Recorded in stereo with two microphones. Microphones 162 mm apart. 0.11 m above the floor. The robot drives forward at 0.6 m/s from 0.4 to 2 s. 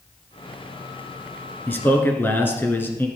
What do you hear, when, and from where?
1.7 s a man speaking: 10° left (ahead or behind), 1.2 m; by 3.1 s 15° left (ahead or behind), 1.1 m